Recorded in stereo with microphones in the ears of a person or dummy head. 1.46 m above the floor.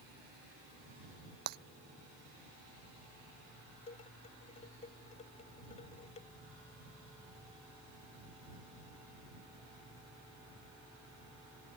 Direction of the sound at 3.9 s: 35° left (ahead or behind).